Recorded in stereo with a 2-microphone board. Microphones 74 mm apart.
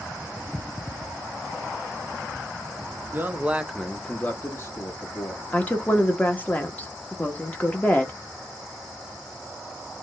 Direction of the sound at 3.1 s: 30° right (ahead or behind).